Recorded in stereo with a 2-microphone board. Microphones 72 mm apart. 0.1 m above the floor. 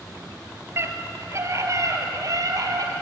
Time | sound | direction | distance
0.8 | a scream | 35° right (ahead or behind) | 2.5 m